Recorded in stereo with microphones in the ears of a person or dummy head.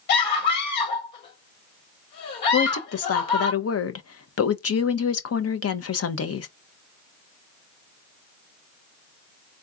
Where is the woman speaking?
65° left (ahead or behind), 0.8 m.